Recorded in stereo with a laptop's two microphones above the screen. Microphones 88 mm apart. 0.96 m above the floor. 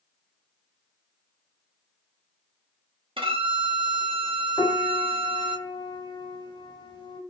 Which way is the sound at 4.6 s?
55° left (ahead or behind).